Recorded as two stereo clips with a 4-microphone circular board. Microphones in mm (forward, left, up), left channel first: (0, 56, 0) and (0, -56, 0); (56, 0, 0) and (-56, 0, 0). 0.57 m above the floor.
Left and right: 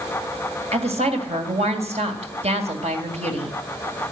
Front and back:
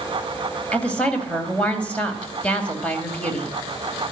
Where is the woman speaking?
80° right, 2.5 m.